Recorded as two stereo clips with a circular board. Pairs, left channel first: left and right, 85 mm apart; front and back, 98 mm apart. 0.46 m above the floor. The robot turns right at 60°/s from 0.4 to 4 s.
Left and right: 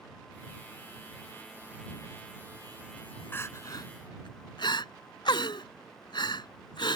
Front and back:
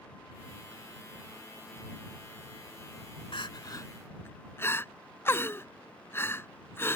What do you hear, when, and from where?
3.3 s crying: 25° left; by 7.0 s 65° left